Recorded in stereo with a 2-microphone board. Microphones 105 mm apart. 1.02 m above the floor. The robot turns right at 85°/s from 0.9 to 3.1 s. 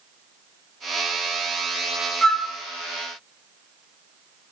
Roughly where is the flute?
Centre.